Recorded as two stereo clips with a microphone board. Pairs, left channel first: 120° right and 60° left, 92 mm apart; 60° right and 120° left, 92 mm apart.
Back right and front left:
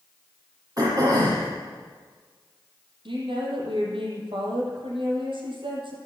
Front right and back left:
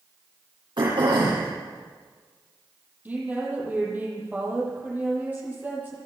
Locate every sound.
0.8 s throat clearing: 100° left, 8.5 m
3.0 s a woman speaking: 50° left, 8 m